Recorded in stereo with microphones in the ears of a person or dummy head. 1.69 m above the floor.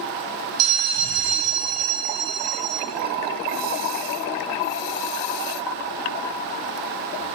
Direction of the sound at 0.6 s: 70° right (ahead or behind).